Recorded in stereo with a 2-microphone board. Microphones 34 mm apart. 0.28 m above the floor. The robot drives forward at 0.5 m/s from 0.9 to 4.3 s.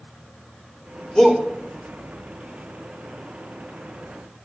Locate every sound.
1.1 s a shout: 20° left (ahead or behind), 5.5 m